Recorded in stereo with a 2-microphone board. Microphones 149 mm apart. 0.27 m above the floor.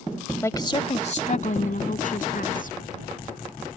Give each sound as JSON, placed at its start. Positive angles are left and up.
{"t": 0.4, "sound": "a woman speaking", "side_deg": 15}